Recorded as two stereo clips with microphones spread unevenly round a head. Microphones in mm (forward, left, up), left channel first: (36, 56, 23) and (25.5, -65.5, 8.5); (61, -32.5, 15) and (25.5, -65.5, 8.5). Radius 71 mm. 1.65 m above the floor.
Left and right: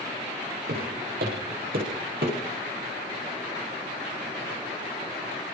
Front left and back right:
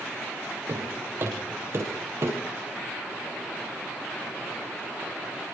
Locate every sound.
0.7 s footsteps: 95° right, 7.5 m; by 2.4 s 115° right, 7.5 m